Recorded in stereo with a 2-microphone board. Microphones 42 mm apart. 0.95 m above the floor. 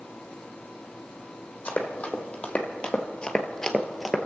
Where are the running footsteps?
35° left (ahead or behind), 1.9 m; by 4.3 s 5° right (ahead or behind), 1.1 m.